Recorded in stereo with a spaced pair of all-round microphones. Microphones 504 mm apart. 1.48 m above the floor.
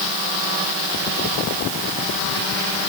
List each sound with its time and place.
Only background noise.